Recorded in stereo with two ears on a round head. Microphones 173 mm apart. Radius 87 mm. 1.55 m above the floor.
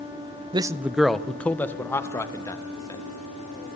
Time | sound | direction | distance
0.5 | a man speaking | 25° right (ahead or behind) | 0.6 m